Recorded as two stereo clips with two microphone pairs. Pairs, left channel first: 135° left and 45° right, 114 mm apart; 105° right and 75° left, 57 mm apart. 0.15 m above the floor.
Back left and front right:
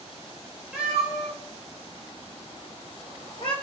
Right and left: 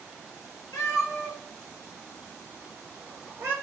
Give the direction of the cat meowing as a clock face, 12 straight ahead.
4 o'clock.